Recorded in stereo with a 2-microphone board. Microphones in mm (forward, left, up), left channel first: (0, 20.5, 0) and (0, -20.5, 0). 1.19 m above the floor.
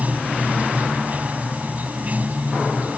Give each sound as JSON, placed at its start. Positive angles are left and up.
{"t": 0.0, "sound": "running water", "side_deg": -40}